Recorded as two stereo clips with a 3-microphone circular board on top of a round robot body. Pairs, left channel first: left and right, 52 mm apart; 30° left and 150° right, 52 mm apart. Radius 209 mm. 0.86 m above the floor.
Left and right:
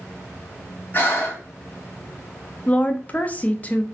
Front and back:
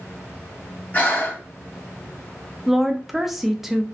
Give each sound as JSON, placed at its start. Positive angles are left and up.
{"t": 0.9, "sound": "breathing", "azimuth_deg": 65, "distance_m": 1.2}
{"t": 2.7, "sound": "a woman speaking", "azimuth_deg": 130, "distance_m": 0.6}